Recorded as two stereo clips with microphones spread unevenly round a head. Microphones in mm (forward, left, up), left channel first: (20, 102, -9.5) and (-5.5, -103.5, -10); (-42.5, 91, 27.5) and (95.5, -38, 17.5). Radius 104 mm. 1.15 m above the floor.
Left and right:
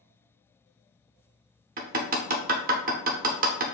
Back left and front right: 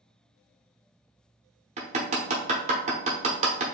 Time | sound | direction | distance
1.8 | hammering | 90° right | 0.9 m